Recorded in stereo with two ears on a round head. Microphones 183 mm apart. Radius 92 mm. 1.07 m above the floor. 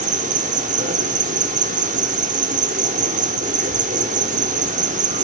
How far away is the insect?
About 1.2 m.